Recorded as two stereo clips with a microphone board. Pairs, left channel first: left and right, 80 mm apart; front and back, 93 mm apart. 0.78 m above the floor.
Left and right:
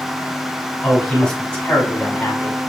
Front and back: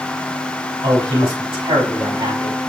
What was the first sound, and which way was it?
A man speaking, 170° left.